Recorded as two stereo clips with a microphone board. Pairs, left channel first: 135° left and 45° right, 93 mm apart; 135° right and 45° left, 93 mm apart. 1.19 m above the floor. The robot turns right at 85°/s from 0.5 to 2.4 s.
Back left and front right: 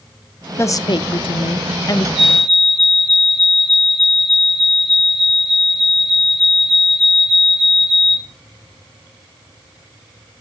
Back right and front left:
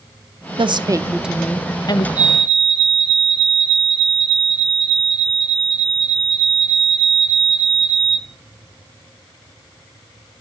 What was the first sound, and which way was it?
A woman speaking, 70° left.